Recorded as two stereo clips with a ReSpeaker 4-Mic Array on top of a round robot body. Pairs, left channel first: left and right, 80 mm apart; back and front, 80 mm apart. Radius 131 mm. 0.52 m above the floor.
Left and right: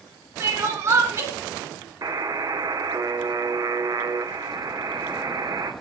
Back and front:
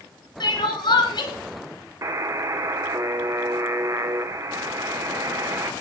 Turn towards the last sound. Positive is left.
turn(degrees=-45)